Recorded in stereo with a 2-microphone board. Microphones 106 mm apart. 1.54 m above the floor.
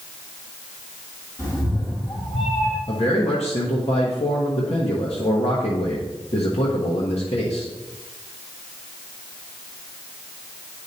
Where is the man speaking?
75° left (ahead or behind), 1.2 m.